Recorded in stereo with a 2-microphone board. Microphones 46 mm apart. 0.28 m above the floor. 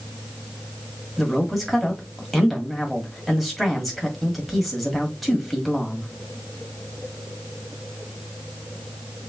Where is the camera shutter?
No camera shutter in this recording.